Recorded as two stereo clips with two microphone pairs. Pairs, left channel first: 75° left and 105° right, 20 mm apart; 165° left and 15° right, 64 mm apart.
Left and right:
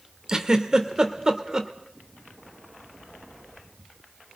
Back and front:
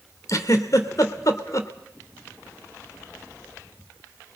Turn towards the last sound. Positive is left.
turn(degrees=-170)